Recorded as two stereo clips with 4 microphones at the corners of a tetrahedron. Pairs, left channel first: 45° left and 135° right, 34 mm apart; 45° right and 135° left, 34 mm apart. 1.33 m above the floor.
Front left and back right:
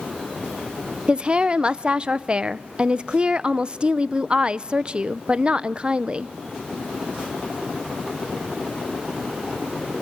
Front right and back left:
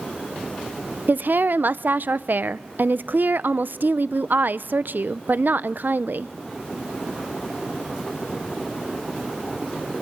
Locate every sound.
1.1 s a woman speaking: 160° left, 0.6 m